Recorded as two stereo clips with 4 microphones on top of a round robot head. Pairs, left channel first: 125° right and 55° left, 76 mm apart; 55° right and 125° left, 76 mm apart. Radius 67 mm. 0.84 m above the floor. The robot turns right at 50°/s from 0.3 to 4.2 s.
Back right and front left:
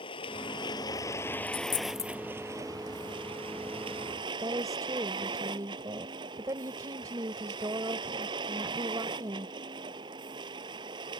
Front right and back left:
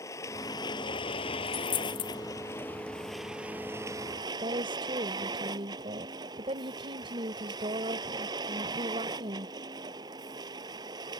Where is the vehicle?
110° right; by 11.2 s 85° left.